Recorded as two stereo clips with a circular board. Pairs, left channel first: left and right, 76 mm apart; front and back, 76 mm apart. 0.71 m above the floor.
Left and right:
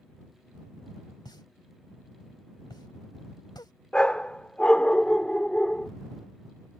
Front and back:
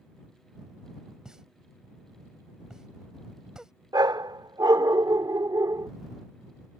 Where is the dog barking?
165° left.